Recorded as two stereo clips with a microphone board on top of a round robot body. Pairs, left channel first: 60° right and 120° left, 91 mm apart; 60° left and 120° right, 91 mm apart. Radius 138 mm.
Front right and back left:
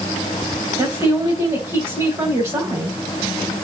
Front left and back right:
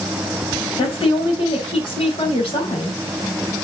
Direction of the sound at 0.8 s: 70° left.